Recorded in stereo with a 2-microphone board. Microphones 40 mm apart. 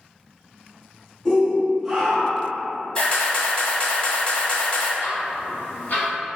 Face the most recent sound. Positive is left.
turn(degrees=55)  # may be behind; listen again after turning